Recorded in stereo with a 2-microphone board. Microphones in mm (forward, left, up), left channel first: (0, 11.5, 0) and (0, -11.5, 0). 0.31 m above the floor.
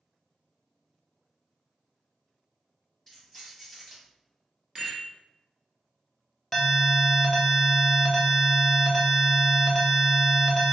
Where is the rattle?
25° right (ahead or behind), 1.2 m.